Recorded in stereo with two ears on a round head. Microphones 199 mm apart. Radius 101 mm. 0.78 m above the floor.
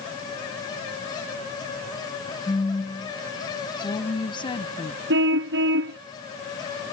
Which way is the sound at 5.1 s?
60° right (ahead or behind).